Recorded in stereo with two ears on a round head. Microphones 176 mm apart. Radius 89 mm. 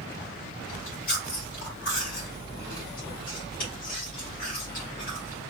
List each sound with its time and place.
0.7 s chewing: 70° left (ahead or behind), 2 m